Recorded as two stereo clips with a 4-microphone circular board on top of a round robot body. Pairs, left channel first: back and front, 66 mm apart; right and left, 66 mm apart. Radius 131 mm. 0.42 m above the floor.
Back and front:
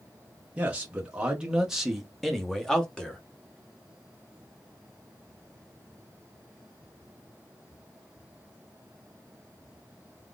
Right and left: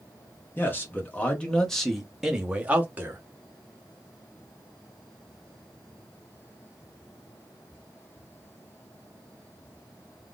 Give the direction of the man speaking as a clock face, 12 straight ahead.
2 o'clock.